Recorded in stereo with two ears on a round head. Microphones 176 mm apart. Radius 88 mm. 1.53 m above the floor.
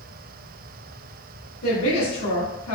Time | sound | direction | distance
1.6 | a woman speaking | 80° left | 1.4 m